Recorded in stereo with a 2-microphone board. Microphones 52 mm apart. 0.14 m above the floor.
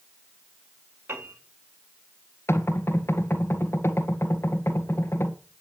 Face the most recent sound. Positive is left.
turn(degrees=50)  # may be behind; listen again after turning